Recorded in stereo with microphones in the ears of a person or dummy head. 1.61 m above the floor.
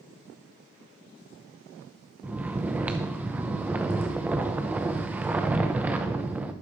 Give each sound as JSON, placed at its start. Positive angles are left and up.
{"t": 2.2, "sound": "snoring", "side_deg": -10, "distance_m": 0.7}